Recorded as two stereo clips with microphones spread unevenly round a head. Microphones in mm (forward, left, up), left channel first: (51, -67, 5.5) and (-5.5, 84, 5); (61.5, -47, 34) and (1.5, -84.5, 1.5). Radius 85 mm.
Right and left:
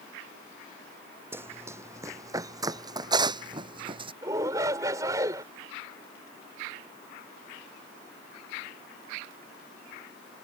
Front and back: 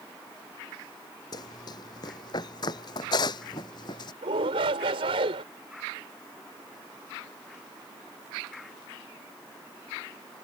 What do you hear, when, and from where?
1.3 s running footsteps: 35° left; by 4.1 s 50° left
4.2 s a shout: 175° right